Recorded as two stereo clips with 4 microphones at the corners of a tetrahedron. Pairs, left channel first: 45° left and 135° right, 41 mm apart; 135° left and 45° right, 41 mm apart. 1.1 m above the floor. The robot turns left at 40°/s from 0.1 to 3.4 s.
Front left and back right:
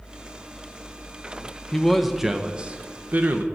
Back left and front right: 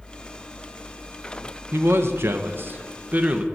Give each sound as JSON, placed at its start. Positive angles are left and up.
{"t": 1.7, "sound": "a man speaking", "azimuth_deg": -35, "distance_m": 0.7}